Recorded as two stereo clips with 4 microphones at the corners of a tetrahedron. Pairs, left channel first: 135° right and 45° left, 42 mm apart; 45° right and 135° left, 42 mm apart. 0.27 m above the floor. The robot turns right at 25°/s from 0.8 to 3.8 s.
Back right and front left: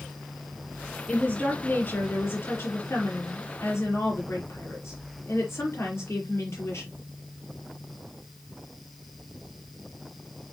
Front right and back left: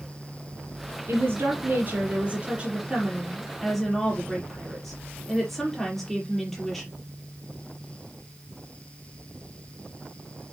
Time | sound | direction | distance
1.1 | a woman speaking | 160° left | 5.5 m